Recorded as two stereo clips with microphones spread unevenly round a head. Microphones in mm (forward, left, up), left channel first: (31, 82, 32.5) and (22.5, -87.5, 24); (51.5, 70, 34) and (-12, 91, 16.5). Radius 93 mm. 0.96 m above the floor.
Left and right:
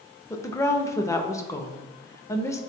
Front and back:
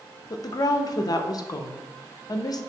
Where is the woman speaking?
15° left, 0.6 m.